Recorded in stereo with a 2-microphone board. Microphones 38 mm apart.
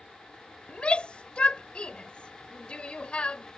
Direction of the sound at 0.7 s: 30° left (ahead or behind).